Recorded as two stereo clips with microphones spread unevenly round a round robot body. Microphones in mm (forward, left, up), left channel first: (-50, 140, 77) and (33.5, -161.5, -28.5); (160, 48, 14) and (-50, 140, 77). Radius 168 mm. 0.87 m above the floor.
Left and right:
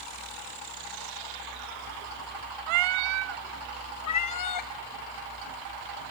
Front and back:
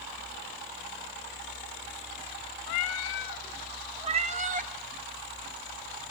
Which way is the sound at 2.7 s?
65° right.